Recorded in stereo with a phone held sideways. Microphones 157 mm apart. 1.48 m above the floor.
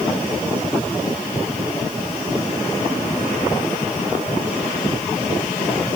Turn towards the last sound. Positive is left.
No sound to turn to.